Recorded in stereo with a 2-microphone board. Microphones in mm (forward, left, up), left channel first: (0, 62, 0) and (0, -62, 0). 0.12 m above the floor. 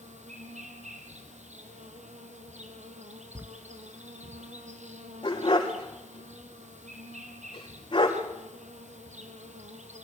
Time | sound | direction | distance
0.0 | an insect | 70° right (ahead or behind) | 2.5 m
3.4 | writing | 20° right (ahead or behind) | 0.6 m
5.2 | a dog barking | 40° left (ahead or behind) | 5 m